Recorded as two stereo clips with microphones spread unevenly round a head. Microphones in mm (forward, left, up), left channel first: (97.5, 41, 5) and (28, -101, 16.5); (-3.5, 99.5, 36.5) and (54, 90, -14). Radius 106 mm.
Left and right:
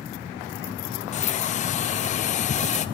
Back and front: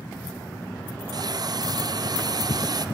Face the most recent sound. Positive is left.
turn(degrees=20)